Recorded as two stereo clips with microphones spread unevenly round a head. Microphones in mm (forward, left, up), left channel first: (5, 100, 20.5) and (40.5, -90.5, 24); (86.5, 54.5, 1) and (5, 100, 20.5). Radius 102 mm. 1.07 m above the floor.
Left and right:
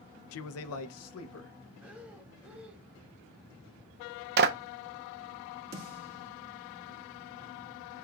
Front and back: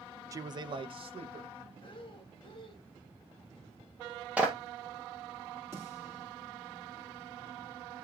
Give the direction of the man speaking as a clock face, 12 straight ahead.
9 o'clock.